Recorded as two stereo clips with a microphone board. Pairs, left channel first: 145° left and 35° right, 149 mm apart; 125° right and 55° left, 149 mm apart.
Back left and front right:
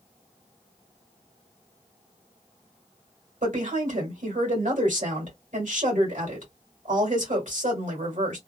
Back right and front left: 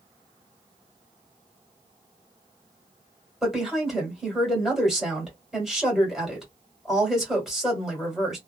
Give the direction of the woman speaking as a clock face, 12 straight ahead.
1 o'clock.